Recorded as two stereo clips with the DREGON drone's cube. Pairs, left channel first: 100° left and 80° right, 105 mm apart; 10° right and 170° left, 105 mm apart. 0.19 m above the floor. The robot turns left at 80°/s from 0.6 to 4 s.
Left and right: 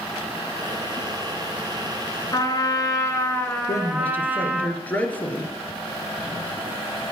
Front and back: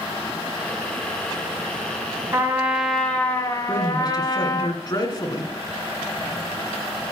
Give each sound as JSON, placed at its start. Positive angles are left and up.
{"t": 2.3, "sound": "a trumpet", "azimuth_deg": 125, "distance_m": 1.5}
{"t": 3.7, "sound": "a man speaking", "azimuth_deg": 55, "distance_m": 2.0}